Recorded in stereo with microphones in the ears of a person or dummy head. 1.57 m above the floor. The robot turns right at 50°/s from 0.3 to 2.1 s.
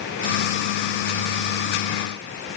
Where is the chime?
I don't hear a chime.